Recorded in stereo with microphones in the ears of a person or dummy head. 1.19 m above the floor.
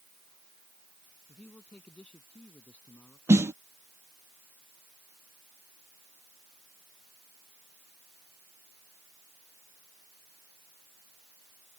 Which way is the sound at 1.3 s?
Centre (ahead or behind).